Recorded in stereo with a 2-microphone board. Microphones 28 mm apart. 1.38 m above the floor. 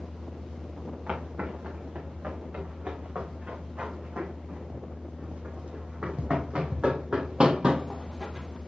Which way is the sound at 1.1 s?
50° right (ahead or behind).